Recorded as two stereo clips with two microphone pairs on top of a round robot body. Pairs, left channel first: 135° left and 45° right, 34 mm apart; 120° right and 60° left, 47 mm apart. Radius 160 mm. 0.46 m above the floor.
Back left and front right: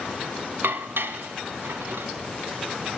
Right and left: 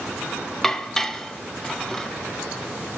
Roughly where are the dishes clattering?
Ahead right.